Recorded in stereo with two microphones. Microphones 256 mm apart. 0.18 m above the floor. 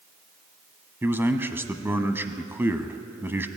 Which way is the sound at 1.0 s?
10° right (ahead or behind).